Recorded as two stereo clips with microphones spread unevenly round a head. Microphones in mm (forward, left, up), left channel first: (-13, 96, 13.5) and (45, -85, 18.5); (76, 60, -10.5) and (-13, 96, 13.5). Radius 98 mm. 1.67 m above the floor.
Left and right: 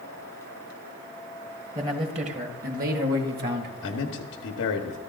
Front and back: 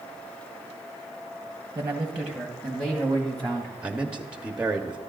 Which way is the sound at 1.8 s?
140° right.